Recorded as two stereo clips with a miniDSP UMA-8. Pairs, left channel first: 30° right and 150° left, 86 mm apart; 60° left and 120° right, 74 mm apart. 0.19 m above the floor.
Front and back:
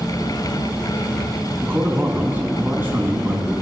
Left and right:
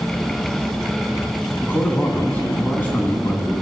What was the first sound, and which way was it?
A man speaking, 105° left.